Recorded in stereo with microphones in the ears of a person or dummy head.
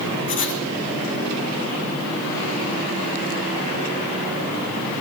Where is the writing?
40° left (ahead or behind), 1.5 m.